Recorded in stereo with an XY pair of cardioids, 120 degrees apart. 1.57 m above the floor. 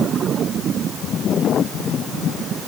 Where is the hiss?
I don't hear a hiss.